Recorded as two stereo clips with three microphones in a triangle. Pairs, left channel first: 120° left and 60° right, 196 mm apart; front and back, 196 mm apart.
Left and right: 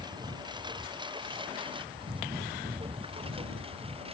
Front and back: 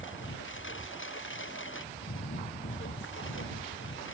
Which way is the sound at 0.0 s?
10° left.